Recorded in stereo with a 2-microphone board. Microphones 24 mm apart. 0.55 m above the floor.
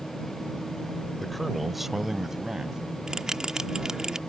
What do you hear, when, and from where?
1.2 s a man speaking: 10° left (ahead or behind); by 2.8 s 25° right (ahead or behind)
3.1 s a bell: 30° right (ahead or behind)